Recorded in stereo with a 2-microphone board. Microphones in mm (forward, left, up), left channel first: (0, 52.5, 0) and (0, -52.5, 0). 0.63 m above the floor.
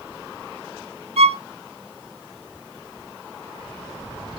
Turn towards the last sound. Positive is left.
turn(degrees=-75)  # may be behind; listen again after turning